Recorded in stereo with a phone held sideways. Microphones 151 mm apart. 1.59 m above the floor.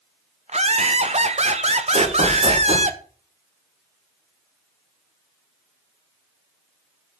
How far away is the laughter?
About 0.9 m.